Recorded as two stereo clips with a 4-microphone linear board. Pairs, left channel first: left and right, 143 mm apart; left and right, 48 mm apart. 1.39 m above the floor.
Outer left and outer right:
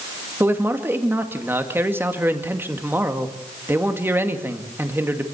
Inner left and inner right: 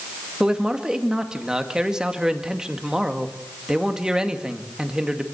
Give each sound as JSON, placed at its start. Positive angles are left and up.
{"t": 0.4, "sound": "a man speaking", "side_deg": -15, "distance_m": 2.0}